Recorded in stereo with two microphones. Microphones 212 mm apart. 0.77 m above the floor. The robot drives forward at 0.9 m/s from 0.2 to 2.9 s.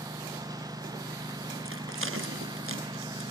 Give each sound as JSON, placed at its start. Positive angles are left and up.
{"t": 0.0, "sound": "a lawn mower", "side_deg": -20}
{"t": 1.6, "sound": "a rattle", "side_deg": -80}